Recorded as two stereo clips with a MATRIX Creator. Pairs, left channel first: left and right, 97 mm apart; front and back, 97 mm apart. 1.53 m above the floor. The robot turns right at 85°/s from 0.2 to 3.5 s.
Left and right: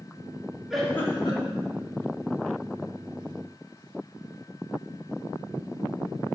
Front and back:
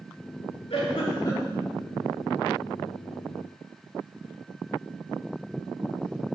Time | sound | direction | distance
0.7 | a giggle | 5° right | 2.5 m